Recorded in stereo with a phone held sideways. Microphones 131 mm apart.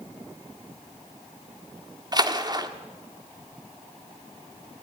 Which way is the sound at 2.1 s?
30° right (ahead or behind).